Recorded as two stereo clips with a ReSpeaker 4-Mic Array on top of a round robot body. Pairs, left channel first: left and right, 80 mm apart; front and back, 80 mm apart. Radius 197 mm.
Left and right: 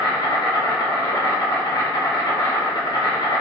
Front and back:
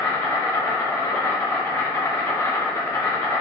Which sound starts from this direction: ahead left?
An insect, at 0.0 s.